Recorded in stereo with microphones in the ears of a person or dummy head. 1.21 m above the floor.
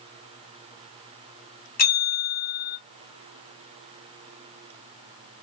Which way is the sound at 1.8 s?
40° left (ahead or behind).